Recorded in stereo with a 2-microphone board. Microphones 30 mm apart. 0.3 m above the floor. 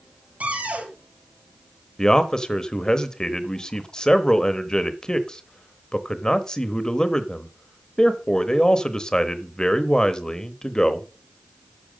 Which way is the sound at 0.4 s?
60° right (ahead or behind).